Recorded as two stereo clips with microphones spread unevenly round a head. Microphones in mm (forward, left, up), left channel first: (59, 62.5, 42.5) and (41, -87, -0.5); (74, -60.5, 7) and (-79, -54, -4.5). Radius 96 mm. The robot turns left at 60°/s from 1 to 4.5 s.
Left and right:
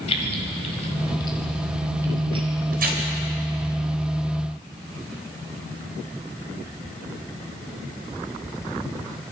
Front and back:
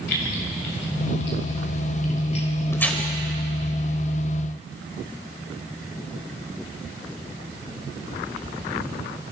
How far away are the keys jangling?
About 4.5 m.